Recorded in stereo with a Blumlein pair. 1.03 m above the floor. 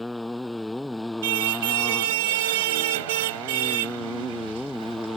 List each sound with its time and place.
0.0 s a motorcycle: 5° left
1.2 s a car horn: 55° right